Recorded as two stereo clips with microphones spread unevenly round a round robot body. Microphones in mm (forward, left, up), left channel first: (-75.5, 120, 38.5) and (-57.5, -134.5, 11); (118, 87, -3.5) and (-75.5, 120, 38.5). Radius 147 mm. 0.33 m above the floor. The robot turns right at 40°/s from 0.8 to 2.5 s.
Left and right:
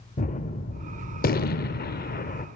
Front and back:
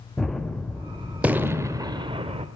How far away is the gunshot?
About 1.1 m.